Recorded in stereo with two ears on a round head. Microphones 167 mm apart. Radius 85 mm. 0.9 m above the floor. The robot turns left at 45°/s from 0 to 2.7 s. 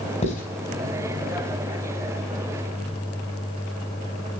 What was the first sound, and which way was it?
Writing, 35° left (ahead or behind).